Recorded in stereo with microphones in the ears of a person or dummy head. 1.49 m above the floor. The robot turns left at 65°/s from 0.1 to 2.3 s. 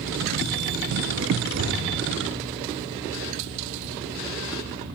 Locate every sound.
1.5 s an explosion: 80° right, 0.8 m; by 1.9 s 60° right (ahead or behind), 0.8 m